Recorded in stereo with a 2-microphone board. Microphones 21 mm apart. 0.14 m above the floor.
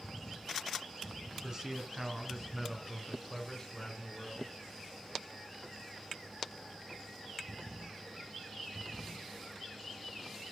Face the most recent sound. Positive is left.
turn(degrees=25)  # may be behind; listen again after turning